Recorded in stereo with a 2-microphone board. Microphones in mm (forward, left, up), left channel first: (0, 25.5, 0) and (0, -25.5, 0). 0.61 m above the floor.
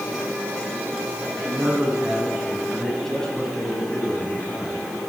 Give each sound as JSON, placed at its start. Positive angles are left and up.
{"t": 1.3, "sound": "a man speaking", "side_deg": -25, "distance_m": 4.5}